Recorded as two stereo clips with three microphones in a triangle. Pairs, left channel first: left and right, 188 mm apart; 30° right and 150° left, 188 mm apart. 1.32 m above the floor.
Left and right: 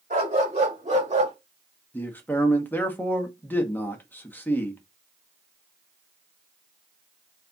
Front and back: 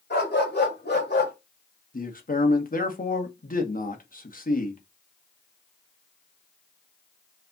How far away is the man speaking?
About 1.2 m.